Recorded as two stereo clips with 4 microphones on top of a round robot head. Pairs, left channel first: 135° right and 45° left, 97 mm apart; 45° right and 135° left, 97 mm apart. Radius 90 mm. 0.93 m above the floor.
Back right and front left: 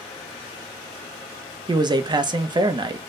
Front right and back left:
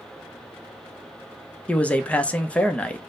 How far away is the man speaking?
About 0.7 m.